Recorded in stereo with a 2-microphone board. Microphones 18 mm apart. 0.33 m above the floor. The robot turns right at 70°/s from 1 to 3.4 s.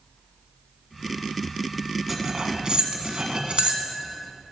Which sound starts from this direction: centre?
Cutlery clinking, at 2.1 s.